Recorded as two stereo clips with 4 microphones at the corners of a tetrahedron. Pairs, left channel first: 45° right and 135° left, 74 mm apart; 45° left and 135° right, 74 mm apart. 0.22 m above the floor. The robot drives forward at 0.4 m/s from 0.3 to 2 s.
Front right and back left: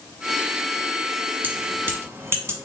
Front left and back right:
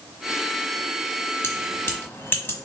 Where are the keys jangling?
80° left, 1.1 m; by 2.6 s 95° left, 1.1 m.